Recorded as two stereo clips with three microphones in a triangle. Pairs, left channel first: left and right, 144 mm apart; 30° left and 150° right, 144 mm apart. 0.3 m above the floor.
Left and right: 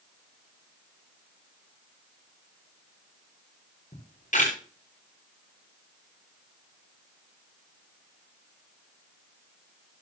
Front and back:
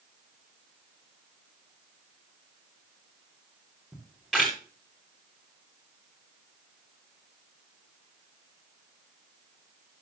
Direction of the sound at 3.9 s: 120° left.